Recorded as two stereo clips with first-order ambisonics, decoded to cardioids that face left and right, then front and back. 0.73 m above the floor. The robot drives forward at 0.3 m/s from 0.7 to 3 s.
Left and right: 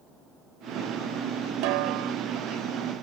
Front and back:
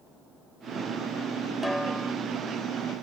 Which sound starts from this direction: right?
A snare drum, at 1.6 s.